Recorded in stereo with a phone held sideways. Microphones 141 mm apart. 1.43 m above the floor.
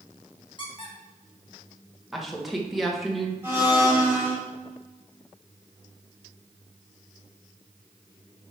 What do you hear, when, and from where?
0.6 s a squeak: 35° left (ahead or behind), 1.4 m
2.1 s a woman speaking: centre (ahead or behind), 1.5 m
3.4 s a blender: 15° right (ahead or behind), 3.5 m